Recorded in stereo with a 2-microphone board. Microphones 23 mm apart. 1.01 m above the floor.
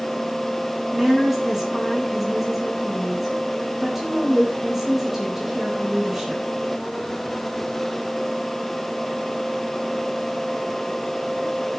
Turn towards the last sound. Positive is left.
turn(degrees=-20)  # may be behind; listen again after turning